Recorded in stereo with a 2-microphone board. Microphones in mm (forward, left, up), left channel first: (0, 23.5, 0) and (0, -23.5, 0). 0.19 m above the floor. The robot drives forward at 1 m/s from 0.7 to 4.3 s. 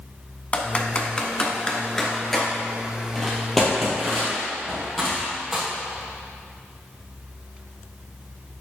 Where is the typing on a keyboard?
30° left (ahead or behind), 1.0 m; by 5.6 s 5° left (ahead or behind), 4 m.